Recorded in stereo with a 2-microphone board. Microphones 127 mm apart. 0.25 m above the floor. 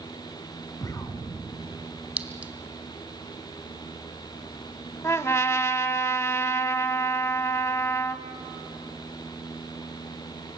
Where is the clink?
10° right (ahead or behind), 1.2 m.